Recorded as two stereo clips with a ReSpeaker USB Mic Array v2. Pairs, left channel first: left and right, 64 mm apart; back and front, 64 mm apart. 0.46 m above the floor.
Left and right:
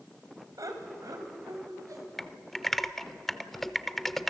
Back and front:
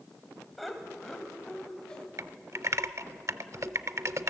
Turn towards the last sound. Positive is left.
turn(degrees=5)